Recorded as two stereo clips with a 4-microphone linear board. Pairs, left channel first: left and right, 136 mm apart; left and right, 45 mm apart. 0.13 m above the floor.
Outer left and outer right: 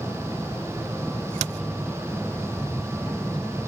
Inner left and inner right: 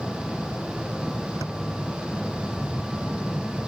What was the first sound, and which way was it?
An aircraft, 5° left (ahead or behind).